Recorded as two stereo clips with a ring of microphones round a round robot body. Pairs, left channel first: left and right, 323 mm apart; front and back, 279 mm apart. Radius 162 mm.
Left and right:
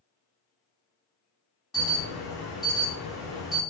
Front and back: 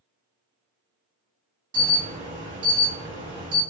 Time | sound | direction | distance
1.7 | an alarm | straight behind | 1.5 m